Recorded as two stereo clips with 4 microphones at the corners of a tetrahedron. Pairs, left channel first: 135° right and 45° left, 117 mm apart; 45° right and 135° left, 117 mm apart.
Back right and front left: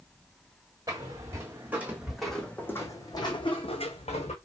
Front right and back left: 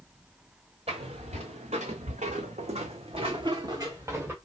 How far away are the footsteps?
About 1.2 m.